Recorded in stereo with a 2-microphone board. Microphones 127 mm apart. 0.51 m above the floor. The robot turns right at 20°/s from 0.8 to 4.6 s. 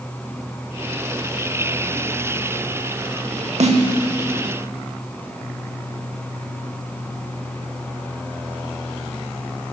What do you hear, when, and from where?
3.6 s a snare drum: 65° right (ahead or behind), 0.8 m; by 3.8 s 70° right (ahead or behind), 0.8 m